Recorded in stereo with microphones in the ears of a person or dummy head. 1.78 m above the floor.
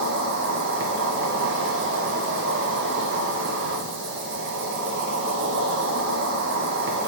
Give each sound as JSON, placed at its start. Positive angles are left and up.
{"t": 0.0, "sound": "an insect", "side_deg": -65, "distance_m": 1.0}